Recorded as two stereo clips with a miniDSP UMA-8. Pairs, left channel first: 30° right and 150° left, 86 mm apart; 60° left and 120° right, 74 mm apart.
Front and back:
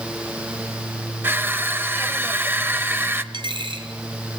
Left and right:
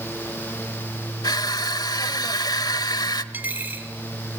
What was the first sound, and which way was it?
Crushing, 85° left.